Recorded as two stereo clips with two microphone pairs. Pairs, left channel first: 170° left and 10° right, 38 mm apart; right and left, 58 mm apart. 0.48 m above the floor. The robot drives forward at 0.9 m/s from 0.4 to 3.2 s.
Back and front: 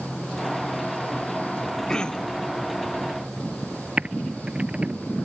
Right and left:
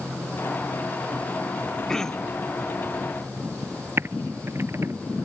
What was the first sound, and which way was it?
Throat clearing, 150° right.